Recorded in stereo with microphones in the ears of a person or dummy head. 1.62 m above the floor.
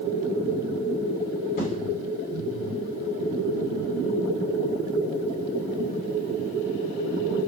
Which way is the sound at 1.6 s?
55° left (ahead or behind).